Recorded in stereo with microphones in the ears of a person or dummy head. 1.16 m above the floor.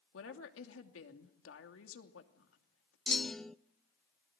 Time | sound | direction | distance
0.1 | a woman speaking | 75° left (ahead or behind) | 3 m
3.1 | a clunk | centre (ahead or behind) | 0.5 m